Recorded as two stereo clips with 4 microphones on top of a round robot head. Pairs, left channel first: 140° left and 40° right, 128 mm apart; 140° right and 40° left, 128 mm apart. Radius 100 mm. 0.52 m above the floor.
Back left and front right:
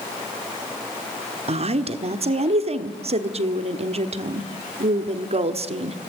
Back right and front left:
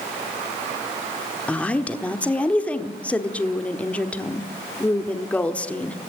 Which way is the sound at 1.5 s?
60° right.